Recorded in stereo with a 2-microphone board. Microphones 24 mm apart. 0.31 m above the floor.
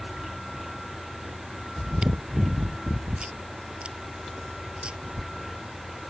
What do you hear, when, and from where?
0.0 s an engine running: 5° right (ahead or behind)
1.8 s chewing: 50° right (ahead or behind)